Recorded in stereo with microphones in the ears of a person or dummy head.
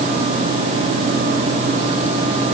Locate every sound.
Only background noise.